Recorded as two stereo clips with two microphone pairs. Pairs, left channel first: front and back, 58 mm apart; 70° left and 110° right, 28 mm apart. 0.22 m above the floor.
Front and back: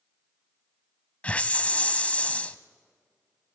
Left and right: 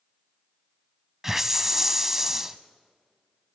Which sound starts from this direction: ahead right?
A hiss, at 1.2 s.